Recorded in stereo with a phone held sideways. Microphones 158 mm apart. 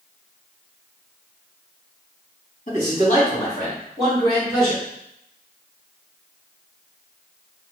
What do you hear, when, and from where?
2.7 s a man speaking: 55° left (ahead or behind), 1.7 m; by 4.8 s 30° left (ahead or behind), 2.5 m